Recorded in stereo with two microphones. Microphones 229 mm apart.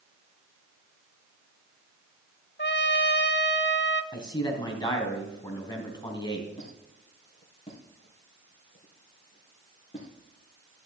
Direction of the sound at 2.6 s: 50° left (ahead or behind).